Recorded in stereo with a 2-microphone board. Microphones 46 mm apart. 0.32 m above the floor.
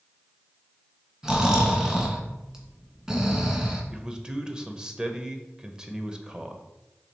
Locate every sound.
1.2 s snoring: 10° right (ahead or behind), 1.7 m
3.9 s a man speaking: 20° right (ahead or behind), 0.8 m